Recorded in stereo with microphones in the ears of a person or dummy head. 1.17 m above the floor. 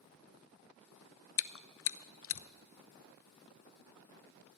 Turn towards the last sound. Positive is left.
turn(degrees=60)  # may be behind; listen again after turning